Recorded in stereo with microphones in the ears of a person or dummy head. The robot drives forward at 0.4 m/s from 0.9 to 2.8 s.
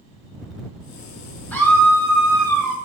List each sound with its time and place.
1.5 s a scream: 10° left (ahead or behind), 1.1 m; by 2.8 s 5° left (ahead or behind), 1.6 m